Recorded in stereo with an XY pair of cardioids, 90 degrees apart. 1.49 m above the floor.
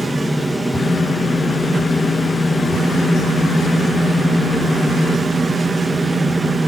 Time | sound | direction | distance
0.0 | a fan | 5° right | 1.1 m